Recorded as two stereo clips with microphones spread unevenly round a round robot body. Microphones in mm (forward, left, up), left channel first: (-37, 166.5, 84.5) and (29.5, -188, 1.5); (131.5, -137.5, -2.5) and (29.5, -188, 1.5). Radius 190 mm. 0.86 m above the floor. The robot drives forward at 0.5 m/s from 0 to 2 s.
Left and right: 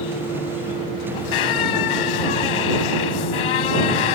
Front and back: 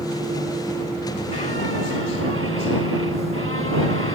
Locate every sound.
1.1 s a squeak: 95° left; by 4.2 s 100° left